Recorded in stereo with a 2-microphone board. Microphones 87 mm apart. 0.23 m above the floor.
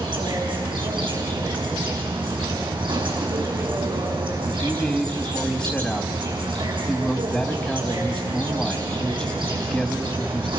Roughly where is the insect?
Right.